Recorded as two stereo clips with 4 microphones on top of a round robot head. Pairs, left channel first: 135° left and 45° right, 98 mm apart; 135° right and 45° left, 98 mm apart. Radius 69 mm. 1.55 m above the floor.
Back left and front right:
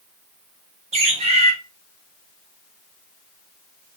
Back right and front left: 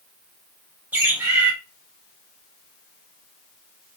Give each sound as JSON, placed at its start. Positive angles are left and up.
{"t": 0.9, "sound": "a bird", "azimuth_deg": -25, "distance_m": 1.1}